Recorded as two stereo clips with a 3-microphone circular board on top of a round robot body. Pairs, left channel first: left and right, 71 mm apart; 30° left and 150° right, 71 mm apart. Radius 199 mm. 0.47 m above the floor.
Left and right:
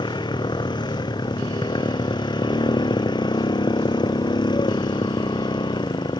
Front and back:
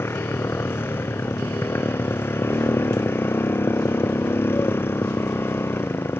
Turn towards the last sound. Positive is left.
turn(degrees=90)